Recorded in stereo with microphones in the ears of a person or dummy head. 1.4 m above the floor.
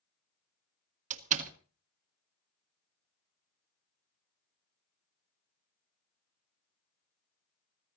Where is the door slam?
45° right (ahead or behind), 1.5 m.